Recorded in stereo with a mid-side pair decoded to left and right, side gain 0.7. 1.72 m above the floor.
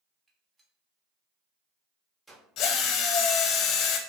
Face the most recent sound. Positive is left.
turn(degrees=50)